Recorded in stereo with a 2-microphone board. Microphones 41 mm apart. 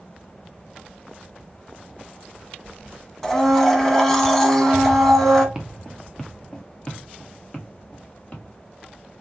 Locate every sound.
3.2 s a blender: 10° left (ahead or behind), 0.9 m
5.5 s footsteps: 10° right (ahead or behind), 0.8 m; by 8.4 s 35° left (ahead or behind), 2.5 m